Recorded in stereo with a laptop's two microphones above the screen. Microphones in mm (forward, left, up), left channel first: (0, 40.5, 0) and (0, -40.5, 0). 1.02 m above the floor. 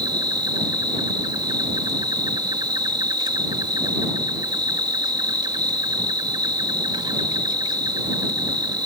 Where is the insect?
65° right (ahead or behind).